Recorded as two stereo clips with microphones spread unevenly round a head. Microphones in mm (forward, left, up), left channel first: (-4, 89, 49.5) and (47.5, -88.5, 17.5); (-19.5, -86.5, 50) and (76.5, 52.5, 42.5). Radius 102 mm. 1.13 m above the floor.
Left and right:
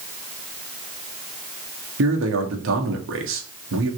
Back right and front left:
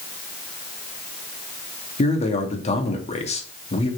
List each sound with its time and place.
2.0 s a man speaking: 70° right, 2 m